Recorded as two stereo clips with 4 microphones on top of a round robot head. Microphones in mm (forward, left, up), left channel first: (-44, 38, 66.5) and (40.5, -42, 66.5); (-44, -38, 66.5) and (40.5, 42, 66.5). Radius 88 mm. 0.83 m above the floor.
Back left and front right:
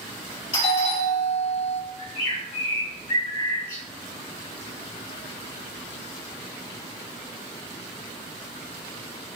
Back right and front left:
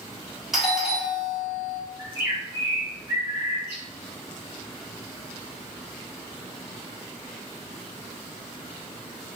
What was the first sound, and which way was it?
A doorbell, 130° left.